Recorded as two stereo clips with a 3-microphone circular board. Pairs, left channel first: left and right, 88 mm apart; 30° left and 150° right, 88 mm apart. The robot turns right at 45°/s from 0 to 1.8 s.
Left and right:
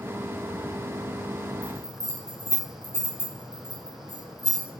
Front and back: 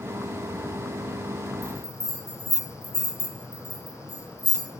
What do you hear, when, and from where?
1.6 s a bell: 125° right, 2.5 m; by 4.7 s 120° right, 2.5 m